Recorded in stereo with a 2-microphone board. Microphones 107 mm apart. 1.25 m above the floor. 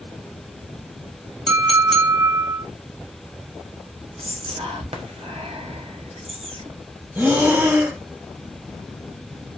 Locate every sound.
1.5 s a clink: 5° left (ahead or behind), 1.2 m
4.2 s whispering: 65° right (ahead or behind), 0.8 m
7.2 s breathing: 25° right (ahead or behind), 0.9 m